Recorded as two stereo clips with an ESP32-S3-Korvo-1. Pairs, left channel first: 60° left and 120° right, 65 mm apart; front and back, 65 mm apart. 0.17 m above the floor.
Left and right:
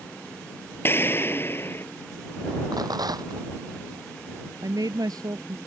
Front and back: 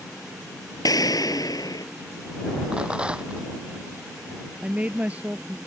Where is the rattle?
105° right.